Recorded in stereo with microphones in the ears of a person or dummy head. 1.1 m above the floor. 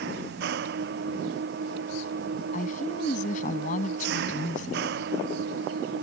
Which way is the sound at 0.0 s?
65° right (ahead or behind).